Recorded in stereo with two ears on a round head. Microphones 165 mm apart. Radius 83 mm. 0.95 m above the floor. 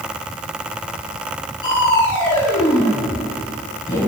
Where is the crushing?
20° left (ahead or behind), 7.5 m.